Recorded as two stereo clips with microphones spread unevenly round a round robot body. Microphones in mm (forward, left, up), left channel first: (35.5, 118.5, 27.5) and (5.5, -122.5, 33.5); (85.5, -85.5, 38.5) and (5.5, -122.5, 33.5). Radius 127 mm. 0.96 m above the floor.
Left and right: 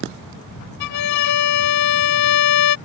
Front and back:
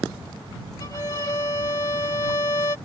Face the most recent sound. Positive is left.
turn(degrees=90)